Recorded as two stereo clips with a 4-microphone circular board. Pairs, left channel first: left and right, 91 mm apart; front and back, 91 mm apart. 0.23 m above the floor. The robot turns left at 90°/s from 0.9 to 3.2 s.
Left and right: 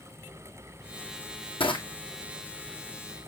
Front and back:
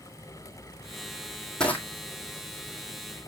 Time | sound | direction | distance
1.6 | crushing | 80° left | 2 m